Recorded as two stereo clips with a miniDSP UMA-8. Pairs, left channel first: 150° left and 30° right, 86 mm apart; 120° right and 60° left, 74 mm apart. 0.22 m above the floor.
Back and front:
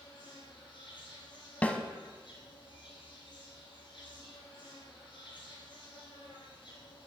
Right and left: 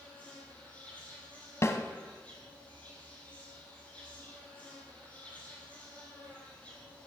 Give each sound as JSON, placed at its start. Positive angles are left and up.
{"t": 0.0, "sound": "an insect", "azimuth_deg": 170, "distance_m": 3.0}
{"t": 1.6, "sound": "a snare drum", "azimuth_deg": -145, "distance_m": 0.8}